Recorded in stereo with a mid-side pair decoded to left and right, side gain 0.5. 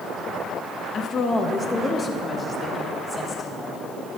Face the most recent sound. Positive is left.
turn(degrees=30)